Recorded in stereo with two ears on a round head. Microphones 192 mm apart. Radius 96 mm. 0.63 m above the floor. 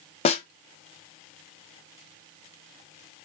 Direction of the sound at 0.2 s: 30° left (ahead or behind).